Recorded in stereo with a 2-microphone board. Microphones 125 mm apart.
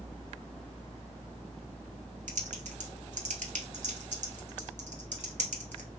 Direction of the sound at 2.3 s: 80° right.